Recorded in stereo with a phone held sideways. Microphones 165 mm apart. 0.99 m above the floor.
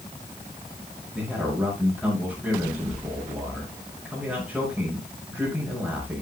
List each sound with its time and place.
1.1 s a man speaking: 5° right (ahead or behind), 5.5 m